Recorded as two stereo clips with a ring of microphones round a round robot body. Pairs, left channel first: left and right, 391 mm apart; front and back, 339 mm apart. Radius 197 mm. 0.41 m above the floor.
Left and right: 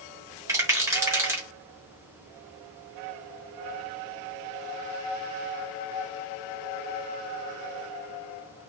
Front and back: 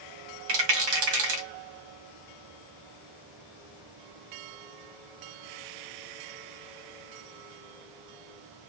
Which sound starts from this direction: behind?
A rattle, at 0.5 s.